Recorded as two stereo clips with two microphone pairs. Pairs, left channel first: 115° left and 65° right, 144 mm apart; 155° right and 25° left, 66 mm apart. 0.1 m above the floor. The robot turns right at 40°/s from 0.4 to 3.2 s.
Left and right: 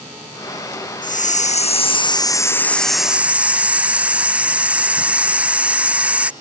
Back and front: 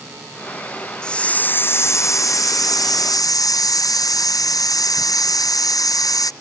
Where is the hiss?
130° left; by 6.3 s 145° right.